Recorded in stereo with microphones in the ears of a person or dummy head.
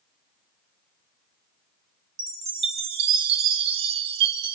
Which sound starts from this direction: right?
A chime, at 2.2 s.